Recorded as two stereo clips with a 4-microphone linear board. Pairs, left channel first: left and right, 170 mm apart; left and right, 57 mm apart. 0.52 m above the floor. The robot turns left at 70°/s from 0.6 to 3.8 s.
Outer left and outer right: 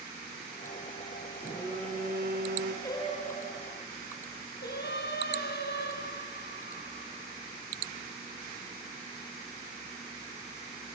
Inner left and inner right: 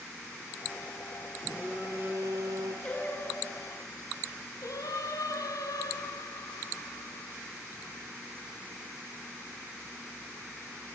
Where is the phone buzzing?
10° right, 2.5 m; by 2.7 s 105° right, 2.5 m.